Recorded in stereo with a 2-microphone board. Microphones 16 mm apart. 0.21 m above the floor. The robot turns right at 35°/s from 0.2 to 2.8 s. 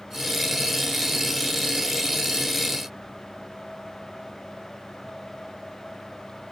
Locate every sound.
Only background noise.